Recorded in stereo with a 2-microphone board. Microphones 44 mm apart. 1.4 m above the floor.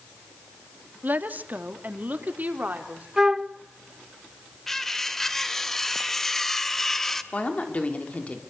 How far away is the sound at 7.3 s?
About 4 m.